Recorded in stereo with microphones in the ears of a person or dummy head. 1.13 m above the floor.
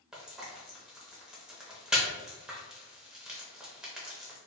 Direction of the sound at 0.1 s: 5° right (ahead or behind).